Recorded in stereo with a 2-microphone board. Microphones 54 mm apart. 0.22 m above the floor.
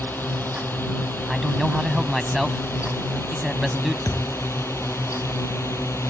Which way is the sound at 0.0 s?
35° left (ahead or behind).